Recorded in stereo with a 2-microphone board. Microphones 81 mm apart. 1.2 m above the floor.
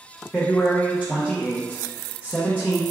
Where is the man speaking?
15° left (ahead or behind), 0.8 m.